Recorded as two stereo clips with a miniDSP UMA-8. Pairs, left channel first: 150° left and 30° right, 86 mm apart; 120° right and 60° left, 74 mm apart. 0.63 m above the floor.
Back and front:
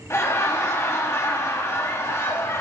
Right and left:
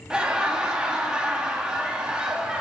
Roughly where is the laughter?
Behind left.